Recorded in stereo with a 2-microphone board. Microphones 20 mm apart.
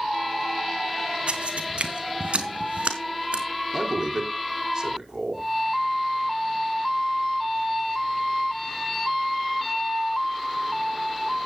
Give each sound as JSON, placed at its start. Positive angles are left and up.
{"t": 1.3, "sound": "footsteps", "side_deg": -65, "distance_m": 2.5}
{"t": 3.7, "sound": "a man speaking", "side_deg": -25, "distance_m": 5.0}